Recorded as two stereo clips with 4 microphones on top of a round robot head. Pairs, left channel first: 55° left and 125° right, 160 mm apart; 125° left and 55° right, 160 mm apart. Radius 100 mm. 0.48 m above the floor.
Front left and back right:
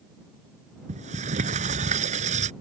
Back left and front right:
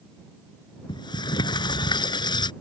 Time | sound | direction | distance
0.9 | a sliding door | 170° right | ?